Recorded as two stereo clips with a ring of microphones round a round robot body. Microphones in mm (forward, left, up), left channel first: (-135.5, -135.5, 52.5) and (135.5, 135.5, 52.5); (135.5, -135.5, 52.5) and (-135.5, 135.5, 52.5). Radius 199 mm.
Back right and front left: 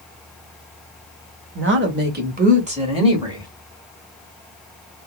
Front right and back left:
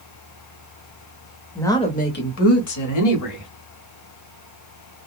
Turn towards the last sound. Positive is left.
turn(degrees=-35)